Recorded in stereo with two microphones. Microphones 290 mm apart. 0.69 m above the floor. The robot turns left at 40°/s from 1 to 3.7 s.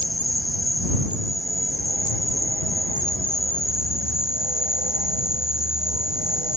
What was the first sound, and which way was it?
An insect, 105° left.